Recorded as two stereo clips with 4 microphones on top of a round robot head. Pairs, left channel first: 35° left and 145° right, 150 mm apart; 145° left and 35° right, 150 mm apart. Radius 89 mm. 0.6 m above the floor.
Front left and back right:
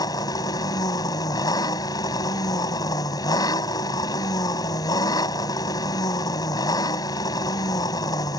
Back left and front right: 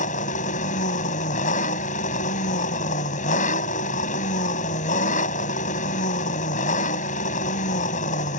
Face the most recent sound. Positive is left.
turn(degrees=105)